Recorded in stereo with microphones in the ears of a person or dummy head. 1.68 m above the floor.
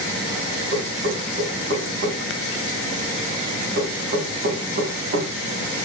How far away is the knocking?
About 3 m.